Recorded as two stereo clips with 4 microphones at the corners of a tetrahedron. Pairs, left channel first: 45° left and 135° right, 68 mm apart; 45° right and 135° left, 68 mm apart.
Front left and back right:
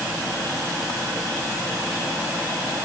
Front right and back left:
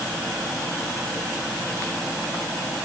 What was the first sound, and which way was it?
Only background noise.